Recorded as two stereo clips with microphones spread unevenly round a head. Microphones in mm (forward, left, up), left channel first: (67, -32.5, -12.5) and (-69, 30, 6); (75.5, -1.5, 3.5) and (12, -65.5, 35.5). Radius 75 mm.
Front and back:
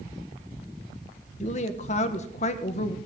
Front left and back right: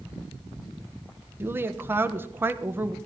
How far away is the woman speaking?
About 1.2 m.